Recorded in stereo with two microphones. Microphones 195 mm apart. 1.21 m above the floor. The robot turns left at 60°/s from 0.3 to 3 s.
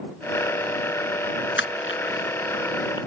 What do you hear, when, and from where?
1.6 s crushing: 75° left (ahead or behind); by 3.0 s 20° left (ahead or behind)